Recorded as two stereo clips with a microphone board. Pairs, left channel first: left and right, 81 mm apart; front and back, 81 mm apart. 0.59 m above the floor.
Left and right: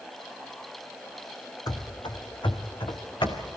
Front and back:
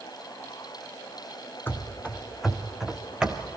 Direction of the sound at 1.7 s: 60° left.